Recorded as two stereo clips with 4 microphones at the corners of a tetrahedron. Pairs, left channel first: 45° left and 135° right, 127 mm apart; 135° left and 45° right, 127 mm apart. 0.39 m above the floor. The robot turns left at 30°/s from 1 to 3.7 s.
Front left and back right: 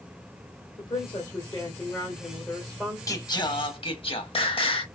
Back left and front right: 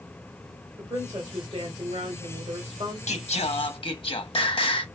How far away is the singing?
About 0.7 m.